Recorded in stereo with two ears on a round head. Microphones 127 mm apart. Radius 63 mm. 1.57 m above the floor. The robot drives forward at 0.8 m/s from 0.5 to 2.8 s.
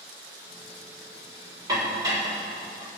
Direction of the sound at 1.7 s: 30° right (ahead or behind).